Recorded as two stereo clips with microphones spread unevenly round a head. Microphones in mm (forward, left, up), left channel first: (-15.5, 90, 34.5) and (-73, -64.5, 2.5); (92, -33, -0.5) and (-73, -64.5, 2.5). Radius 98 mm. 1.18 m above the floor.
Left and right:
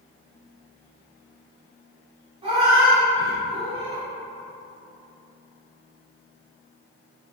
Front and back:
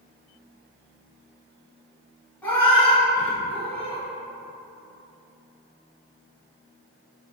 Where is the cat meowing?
55° right, 1.1 m.